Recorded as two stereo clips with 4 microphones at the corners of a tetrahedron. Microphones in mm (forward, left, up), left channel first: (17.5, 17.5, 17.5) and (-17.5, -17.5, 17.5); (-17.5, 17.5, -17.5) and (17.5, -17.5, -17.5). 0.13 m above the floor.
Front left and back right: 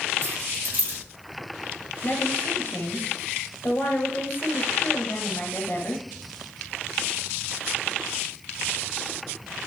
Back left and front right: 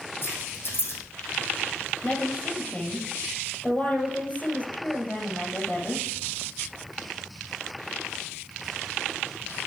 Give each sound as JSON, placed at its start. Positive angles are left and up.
{"t": 0.2, "sound": "keys jangling", "azimuth_deg": 175, "distance_m": 3.5}
{"t": 2.0, "sound": "a woman speaking", "azimuth_deg": 80, "distance_m": 2.5}